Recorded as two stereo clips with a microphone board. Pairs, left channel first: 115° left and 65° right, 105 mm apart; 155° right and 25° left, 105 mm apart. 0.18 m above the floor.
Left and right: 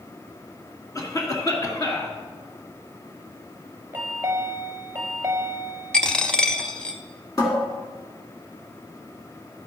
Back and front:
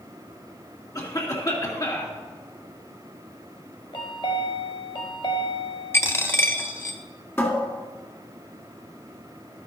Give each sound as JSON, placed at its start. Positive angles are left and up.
{"t": 0.9, "sound": "a cough", "azimuth_deg": 160, "distance_m": 2.0}
{"t": 3.9, "sound": "a chime", "azimuth_deg": -135, "distance_m": 1.0}
{"t": 5.9, "sound": "a dropped coin", "azimuth_deg": -175, "distance_m": 0.7}
{"t": 7.4, "sound": "a cupboard door", "azimuth_deg": 145, "distance_m": 2.0}